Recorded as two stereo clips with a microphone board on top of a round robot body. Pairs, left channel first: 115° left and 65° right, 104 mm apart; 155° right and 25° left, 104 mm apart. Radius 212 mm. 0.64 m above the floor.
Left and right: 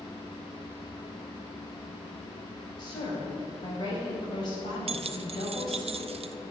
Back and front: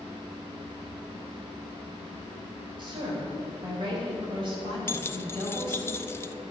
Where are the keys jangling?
90° right, 0.6 m.